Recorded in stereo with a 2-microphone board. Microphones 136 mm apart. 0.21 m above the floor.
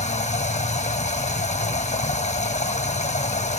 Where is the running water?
60° left (ahead or behind), 1.0 m.